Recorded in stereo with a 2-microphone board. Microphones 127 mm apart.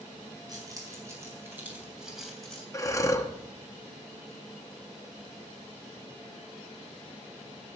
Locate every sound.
0.5 s keys jangling: 30° right (ahead or behind), 4 m; by 2.6 s 10° left (ahead or behind), 3 m
2.7 s breathing: 25° left (ahead or behind), 0.9 m